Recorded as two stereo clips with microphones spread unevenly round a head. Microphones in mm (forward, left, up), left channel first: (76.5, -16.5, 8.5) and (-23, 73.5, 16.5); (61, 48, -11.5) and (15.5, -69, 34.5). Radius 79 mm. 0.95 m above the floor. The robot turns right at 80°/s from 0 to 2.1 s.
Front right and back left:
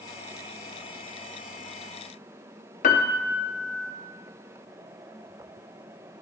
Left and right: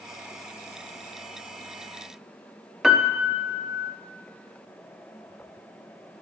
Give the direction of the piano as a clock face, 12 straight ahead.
1 o'clock.